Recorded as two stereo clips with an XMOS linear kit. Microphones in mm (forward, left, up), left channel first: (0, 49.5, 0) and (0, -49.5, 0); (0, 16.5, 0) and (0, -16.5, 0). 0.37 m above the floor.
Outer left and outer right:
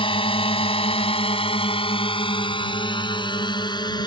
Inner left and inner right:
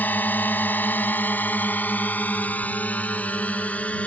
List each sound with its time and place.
0.0 s a drone: 60° left (ahead or behind); by 4.1 s 45° left (ahead or behind)